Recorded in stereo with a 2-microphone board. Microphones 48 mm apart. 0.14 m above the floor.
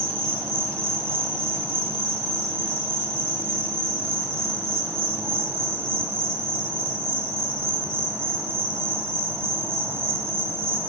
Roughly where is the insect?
Right.